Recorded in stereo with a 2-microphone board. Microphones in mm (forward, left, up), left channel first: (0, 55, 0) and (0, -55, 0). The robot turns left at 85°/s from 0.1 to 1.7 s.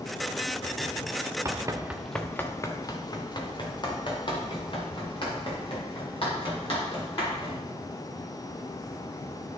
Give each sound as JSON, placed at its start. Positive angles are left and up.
{"t": 1.4, "sound": "running footsteps", "side_deg": -30, "distance_m": 0.8}